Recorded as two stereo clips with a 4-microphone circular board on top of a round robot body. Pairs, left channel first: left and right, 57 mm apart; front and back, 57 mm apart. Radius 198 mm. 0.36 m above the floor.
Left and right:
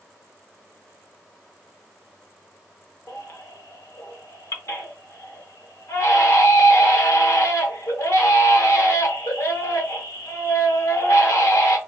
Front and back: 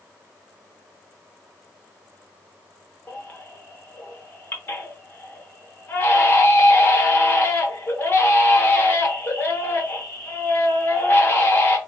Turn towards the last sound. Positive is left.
turn(degrees=55)